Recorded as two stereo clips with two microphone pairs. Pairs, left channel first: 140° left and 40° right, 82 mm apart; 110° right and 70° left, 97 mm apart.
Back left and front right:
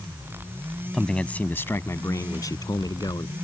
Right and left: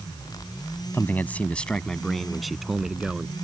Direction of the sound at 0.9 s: 140° right.